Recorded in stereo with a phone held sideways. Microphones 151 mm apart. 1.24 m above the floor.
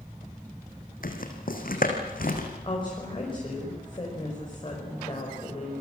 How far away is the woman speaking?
About 5.5 m.